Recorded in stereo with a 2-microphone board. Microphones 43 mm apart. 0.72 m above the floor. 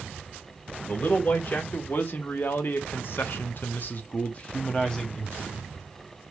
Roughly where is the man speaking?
Left.